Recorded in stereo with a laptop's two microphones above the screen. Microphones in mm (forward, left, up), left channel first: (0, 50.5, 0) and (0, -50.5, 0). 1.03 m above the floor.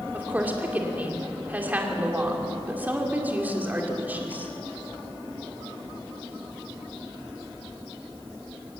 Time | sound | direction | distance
0.1 | a woman speaking | 15° right (ahead or behind) | 2.5 m